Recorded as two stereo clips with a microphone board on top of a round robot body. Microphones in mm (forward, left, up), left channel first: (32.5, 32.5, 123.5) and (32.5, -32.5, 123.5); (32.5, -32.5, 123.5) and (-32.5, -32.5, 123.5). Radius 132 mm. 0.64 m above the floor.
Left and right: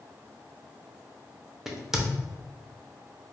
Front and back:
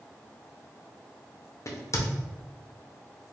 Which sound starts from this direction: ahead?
A crack, at 1.7 s.